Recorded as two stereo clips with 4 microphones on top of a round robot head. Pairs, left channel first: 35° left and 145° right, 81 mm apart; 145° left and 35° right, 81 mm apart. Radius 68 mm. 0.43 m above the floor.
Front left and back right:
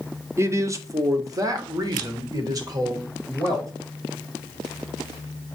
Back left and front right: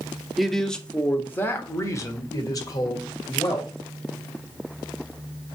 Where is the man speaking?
120° right, 1.0 m; by 3.7 s 175° left, 2 m.